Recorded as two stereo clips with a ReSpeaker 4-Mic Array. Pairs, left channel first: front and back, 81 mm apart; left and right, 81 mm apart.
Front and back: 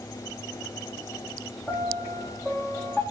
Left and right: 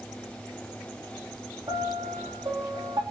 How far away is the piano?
About 3.5 m.